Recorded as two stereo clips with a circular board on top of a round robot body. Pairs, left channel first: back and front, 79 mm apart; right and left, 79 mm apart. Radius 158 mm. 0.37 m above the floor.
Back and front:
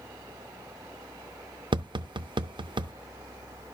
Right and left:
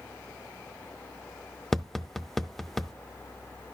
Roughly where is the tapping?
Ahead.